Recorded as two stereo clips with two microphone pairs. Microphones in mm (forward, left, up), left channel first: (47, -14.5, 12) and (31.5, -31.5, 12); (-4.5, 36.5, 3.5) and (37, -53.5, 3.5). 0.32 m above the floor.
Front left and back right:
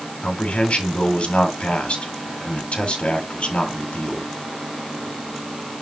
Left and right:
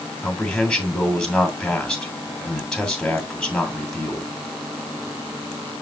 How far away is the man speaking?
About 2.5 m.